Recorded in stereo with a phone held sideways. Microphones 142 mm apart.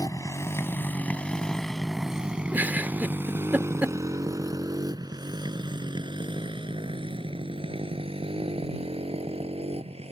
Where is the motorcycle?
25° left (ahead or behind); by 10.1 s 45° right (ahead or behind).